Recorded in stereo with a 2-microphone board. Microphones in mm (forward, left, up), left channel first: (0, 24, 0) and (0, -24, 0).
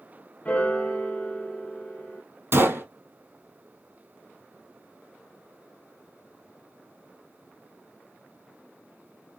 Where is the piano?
25° left (ahead or behind), 1.0 m.